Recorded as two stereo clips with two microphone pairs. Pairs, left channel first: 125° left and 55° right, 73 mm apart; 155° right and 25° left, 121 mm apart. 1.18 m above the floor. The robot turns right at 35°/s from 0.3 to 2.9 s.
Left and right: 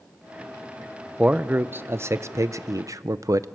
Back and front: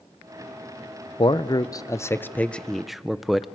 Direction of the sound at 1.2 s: 120° right.